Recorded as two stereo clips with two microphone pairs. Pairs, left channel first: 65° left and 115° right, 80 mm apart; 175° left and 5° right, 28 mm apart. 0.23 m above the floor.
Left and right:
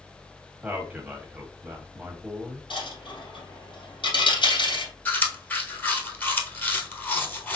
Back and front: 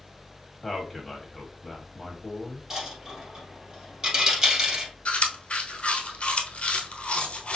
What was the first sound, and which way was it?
A man speaking, 105° right.